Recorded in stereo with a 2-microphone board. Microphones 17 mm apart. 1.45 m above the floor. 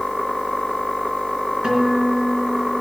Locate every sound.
1.6 s a guitar: 60° right (ahead or behind), 4 m